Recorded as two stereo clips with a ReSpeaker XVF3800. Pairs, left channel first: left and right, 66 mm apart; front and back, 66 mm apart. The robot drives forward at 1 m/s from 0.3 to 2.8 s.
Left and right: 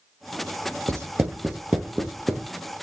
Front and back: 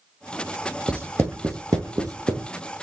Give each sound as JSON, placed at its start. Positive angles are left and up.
{"t": 0.9, "sound": "writing", "azimuth_deg": -115, "distance_m": 0.5}